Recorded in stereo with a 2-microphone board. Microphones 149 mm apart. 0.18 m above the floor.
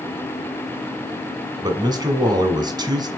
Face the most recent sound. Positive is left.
turn(degrees=-25)  # may be behind; listen again after turning